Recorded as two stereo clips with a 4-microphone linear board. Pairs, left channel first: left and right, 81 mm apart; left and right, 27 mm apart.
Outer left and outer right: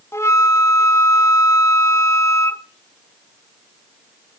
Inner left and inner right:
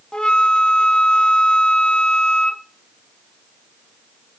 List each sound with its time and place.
0.1 s a flute: 35° left (ahead or behind), 1.1 m